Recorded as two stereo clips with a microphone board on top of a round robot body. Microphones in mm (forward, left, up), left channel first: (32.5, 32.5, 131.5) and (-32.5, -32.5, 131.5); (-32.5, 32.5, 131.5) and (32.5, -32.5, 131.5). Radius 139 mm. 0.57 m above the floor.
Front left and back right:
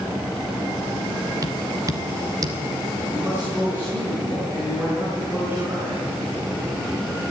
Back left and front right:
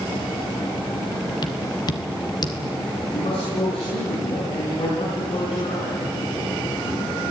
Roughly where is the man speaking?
Behind left.